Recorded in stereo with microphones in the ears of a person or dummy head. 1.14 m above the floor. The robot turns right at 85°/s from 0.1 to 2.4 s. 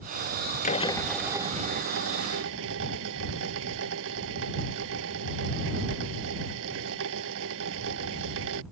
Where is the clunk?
I don't hear a clunk.